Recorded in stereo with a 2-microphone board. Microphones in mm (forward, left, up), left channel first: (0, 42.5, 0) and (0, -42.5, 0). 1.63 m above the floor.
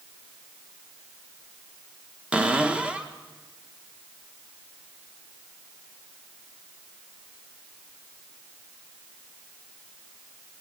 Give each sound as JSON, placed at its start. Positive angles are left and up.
{"t": 2.3, "sound": "a cupboard door", "side_deg": -15, "distance_m": 1.4}